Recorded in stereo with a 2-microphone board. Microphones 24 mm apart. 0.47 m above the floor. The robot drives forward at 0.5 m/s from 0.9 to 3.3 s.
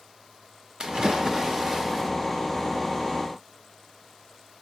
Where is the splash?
35° right (ahead or behind), 0.5 m; by 2.1 s 20° right (ahead or behind), 1.0 m.